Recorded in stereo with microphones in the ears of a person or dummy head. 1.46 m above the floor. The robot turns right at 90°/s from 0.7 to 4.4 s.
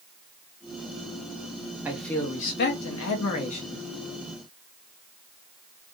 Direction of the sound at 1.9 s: 10° right.